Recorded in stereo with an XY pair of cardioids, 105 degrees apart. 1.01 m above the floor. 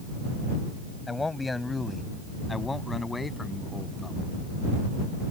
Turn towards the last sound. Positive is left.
turn(degrees=20)